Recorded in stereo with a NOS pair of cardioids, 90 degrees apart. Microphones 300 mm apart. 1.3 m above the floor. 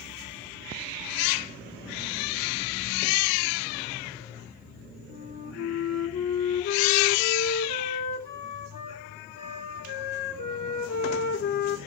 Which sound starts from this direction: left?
A flute, at 5.1 s.